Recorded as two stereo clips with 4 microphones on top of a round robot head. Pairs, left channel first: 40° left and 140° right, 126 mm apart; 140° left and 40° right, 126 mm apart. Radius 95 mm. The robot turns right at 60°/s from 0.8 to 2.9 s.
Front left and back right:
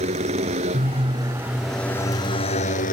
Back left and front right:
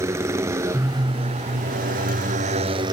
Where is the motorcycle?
105° right; by 2.9 s 20° left.